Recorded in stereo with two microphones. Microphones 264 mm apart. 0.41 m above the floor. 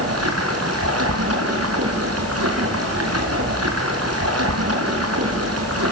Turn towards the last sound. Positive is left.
turn(degrees=-65)  # may be behind; listen again after turning